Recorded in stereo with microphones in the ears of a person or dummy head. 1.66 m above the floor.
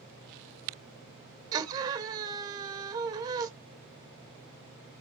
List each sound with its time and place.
1.5 s a scream: 25° right (ahead or behind), 1.7 m